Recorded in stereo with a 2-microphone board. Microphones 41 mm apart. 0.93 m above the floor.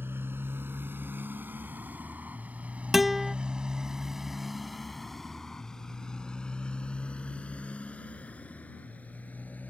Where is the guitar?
5° right (ahead or behind).